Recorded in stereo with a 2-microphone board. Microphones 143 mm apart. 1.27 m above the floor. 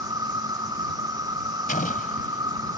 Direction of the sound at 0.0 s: 30° right (ahead or behind).